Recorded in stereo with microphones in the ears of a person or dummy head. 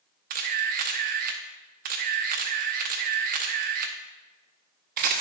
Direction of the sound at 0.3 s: 45° right (ahead or behind).